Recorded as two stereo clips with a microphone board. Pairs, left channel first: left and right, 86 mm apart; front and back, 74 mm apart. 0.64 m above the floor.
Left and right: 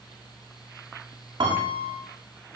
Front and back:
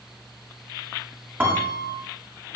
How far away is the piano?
About 8 m.